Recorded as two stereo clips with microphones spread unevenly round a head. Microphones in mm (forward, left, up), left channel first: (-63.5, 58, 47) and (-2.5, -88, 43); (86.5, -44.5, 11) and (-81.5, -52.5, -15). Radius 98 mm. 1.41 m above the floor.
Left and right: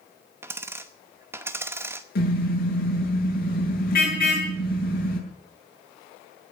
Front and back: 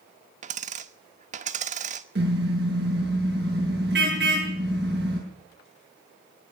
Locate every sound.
0.4 s a dropped coin: 140° right, 0.9 m
2.1 s a car horn: 140° left, 8 m